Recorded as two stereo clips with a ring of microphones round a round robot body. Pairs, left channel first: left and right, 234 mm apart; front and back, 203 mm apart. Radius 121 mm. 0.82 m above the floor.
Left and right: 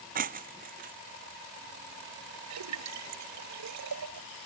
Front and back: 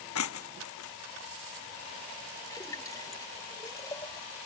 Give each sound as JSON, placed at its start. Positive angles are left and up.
{"t": 0.1, "sound": "breaking glass", "azimuth_deg": -35}
{"t": 2.5, "sound": "a splash", "azimuth_deg": -75}